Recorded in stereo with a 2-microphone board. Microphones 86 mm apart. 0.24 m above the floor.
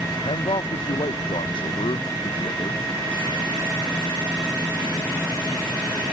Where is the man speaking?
75° left (ahead or behind); by 2.9 s 70° left (ahead or behind).